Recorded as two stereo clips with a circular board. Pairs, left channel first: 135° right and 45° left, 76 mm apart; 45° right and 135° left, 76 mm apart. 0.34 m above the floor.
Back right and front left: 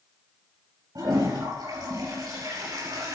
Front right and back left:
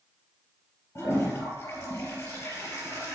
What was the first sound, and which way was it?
A toilet flushing, 15° left.